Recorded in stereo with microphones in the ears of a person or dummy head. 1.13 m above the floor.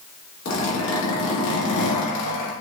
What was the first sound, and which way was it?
A zipper, 65° left (ahead or behind).